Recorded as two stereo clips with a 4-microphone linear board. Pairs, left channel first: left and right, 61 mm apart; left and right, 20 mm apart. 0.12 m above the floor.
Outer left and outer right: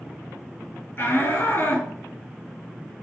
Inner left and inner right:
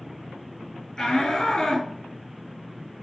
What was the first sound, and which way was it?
A shout, 40° left (ahead or behind).